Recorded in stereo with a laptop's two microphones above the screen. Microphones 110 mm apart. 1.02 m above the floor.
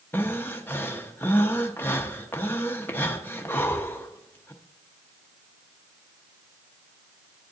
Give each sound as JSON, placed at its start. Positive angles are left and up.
{"t": 0.1, "sound": "breathing", "side_deg": 20, "distance_m": 0.6}